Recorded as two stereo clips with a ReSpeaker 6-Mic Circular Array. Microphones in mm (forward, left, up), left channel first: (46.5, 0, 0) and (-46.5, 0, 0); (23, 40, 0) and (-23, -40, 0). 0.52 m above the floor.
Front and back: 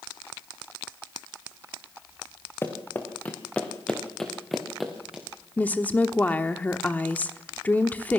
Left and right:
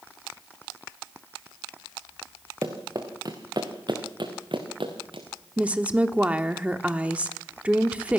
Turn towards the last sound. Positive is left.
turn(degrees=-55)